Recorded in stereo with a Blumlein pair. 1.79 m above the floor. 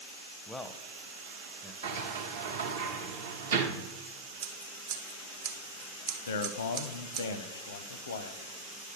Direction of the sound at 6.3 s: 60° left.